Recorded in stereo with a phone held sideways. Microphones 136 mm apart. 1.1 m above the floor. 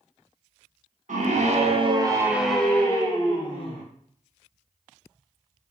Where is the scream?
70° right (ahead or behind), 0.7 m; by 3.8 s 40° left (ahead or behind), 1.0 m.